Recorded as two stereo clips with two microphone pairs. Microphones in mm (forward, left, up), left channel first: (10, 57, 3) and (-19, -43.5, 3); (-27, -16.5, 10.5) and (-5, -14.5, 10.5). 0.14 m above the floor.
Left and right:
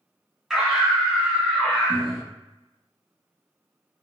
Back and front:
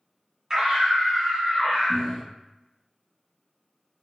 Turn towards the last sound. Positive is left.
turn(degrees=150)